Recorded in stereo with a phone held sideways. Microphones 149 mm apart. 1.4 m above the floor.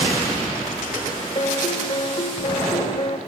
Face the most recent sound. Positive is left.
turn(degrees=40)  # may be behind; listen again after turning